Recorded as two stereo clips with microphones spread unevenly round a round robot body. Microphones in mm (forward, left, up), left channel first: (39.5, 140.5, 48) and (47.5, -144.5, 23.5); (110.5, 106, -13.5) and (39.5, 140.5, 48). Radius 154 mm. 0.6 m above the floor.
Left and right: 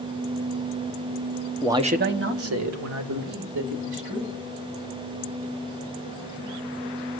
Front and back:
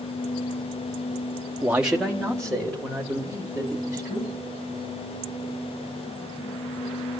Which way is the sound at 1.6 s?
20° right.